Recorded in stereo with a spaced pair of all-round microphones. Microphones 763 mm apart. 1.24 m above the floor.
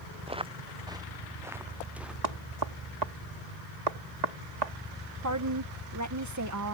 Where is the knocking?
55° right (ahead or behind).